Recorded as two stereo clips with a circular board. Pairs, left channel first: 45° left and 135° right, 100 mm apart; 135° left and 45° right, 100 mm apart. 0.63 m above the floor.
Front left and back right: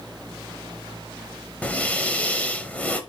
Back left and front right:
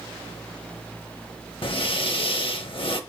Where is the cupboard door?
No cupboard door in this recording.